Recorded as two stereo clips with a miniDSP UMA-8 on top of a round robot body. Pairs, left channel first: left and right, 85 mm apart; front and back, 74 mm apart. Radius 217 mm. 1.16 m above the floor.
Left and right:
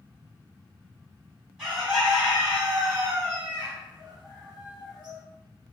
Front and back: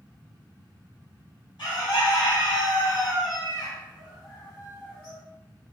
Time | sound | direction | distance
1.6 | a bird | 5° right | 1.6 m